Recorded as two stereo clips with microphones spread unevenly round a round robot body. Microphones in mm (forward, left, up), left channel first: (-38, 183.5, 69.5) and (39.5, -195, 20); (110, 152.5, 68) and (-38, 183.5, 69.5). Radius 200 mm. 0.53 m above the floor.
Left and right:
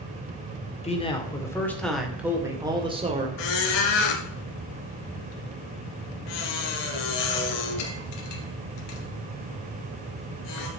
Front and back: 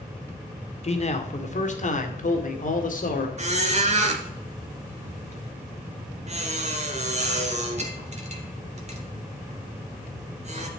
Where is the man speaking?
25° left, 2 m; by 3.3 s 15° right, 2.5 m.